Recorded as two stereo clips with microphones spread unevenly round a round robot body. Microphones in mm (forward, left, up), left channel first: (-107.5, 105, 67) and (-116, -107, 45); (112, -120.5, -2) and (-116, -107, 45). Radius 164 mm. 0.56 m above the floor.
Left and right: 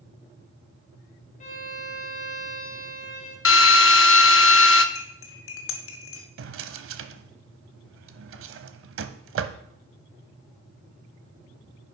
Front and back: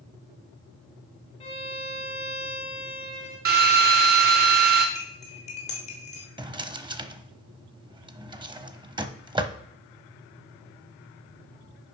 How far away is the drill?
About 0.8 m.